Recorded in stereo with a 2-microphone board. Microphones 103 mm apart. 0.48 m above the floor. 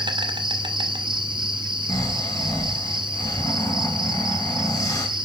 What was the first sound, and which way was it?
An insect, 50° right (ahead or behind).